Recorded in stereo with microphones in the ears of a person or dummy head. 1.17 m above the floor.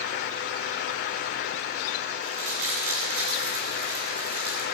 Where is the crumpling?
60° right (ahead or behind), 10 m.